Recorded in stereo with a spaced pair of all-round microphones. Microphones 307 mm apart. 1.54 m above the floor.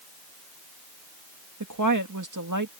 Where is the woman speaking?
75° right (ahead or behind).